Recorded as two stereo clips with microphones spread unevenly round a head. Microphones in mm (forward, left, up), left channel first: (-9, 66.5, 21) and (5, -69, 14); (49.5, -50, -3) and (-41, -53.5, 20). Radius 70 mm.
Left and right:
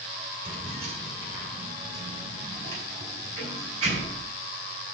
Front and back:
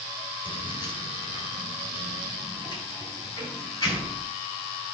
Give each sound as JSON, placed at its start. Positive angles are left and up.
{"t": 0.5, "sound": "keys jangling", "azimuth_deg": -35, "distance_m": 2.5}